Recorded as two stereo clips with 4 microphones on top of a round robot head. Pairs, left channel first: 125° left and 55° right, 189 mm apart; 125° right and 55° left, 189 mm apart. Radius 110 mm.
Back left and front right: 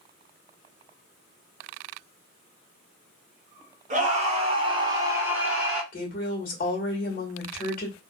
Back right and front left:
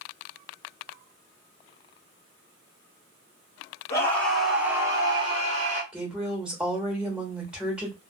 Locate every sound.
3.9 s a scream: 55° right, 1.5 m; by 5.8 s 30° left, 1.7 m
5.9 s a woman speaking: 140° left, 1.3 m